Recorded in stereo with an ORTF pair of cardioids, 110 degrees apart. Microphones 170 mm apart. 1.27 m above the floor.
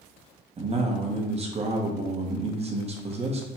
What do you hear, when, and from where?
0.6 s a man speaking: 35° right, 1.1 m